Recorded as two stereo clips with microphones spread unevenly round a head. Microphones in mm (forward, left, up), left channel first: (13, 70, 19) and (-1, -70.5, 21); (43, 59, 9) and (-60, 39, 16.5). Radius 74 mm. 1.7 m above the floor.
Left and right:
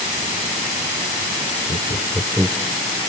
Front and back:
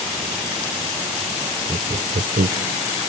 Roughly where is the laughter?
Behind left.